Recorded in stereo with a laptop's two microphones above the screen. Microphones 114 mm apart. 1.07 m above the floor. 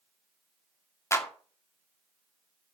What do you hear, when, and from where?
1.1 s a clap: 25° left (ahead or behind), 2 m